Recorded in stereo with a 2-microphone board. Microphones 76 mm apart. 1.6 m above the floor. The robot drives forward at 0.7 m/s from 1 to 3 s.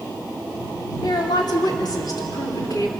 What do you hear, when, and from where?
1.0 s a woman speaking: 70° left (ahead or behind), 3.5 m; by 2.9 s 50° left (ahead or behind), 4 m